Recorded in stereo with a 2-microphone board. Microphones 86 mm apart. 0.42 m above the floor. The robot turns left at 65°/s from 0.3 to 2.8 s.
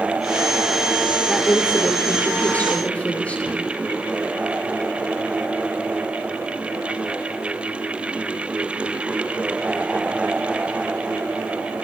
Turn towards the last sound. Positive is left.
turn(degrees=15)  # may be behind; listen again after turning